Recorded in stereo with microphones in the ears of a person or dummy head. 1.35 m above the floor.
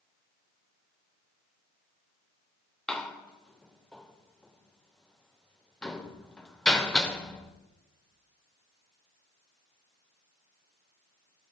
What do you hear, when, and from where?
2.9 s a door slam: 5° left (ahead or behind), 0.5 m